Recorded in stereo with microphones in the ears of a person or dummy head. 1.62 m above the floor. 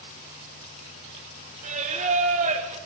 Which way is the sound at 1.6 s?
35° right (ahead or behind).